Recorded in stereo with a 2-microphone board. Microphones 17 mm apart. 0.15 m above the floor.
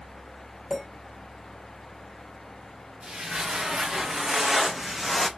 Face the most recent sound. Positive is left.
turn(degrees=10)  # may be behind; listen again after turning